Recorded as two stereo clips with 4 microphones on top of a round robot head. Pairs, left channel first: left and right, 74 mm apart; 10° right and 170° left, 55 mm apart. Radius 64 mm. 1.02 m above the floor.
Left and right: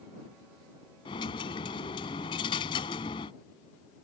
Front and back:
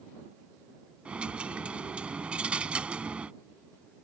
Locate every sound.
1.1 s a dropped coin: 105° left